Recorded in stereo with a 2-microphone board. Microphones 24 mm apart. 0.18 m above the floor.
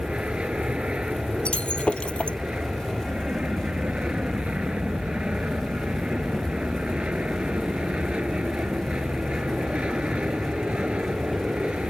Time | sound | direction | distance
0.0 | an aircraft | 55° right (ahead or behind) | ?
1.4 | breaking glass | 60° left (ahead or behind) | ?